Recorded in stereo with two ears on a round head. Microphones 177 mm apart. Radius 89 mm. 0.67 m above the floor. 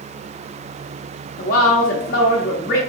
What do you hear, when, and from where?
1.4 s a woman speaking: 45° left (ahead or behind), 0.8 m